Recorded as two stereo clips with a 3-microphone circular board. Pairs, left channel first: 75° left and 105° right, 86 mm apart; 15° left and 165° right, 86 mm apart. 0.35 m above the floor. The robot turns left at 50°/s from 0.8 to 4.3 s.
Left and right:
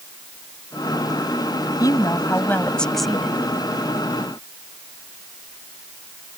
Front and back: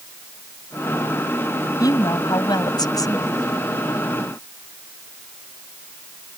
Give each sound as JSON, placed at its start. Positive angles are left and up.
{"t": 1.8, "sound": "a woman speaking", "azimuth_deg": 45}